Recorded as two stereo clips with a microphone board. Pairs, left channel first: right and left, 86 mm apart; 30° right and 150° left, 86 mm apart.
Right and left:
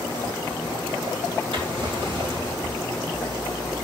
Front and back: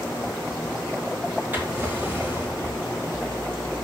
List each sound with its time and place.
1.5 s a drawer: 80° left, 5.5 m